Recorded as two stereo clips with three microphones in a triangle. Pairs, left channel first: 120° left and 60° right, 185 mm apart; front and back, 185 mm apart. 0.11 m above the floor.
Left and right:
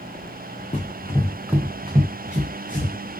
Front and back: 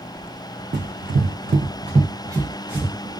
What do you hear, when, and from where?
0.7 s running footsteps: 170° left, 0.6 m; by 2.9 s 95° right, 1.1 m